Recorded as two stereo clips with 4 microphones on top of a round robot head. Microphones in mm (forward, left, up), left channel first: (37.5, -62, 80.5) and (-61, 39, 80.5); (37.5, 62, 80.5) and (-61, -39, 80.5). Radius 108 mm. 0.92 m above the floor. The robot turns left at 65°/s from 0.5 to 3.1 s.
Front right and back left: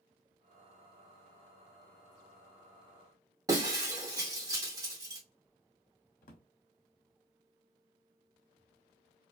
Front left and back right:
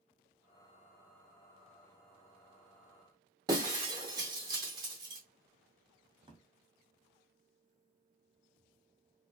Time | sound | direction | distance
3.5 | breaking glass | 175° right | 0.6 m
6.2 | a drawer | 75° right | 0.7 m